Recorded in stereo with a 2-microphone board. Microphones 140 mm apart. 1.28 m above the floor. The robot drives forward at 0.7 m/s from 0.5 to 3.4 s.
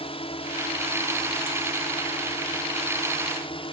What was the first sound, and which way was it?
A drone, 40° left (ahead or behind).